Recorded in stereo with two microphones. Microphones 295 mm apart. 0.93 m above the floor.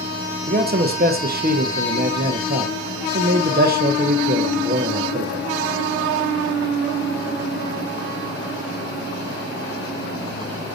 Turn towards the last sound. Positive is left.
turn(degrees=-30)  # may be behind; listen again after turning